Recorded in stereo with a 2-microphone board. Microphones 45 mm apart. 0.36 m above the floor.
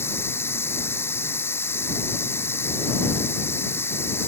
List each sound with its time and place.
0.0 s running water: 65° left (ahead or behind)